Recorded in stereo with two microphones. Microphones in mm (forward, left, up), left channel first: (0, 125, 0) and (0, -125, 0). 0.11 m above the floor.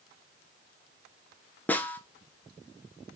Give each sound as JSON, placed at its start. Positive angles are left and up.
{"t": 1.7, "sound": "a snare drum", "side_deg": 5, "distance_m": 0.5}